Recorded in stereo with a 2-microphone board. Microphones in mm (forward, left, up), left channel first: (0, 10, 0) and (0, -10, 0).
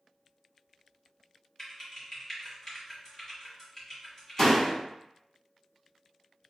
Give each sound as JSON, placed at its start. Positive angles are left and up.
{"t": 1.6, "sound": "typing on a keyboard", "side_deg": 30, "distance_m": 1.6}
{"t": 4.4, "sound": "a door slam", "side_deg": 25, "distance_m": 0.9}